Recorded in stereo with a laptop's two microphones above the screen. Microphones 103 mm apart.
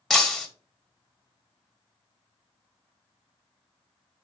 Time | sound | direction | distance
0.1 | breaking glass | centre (ahead or behind) | 1.0 m